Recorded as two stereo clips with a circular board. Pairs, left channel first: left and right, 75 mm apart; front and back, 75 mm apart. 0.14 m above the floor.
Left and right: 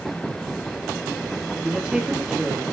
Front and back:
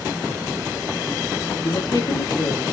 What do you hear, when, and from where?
1.6 s a woman speaking: 10° right, 3.5 m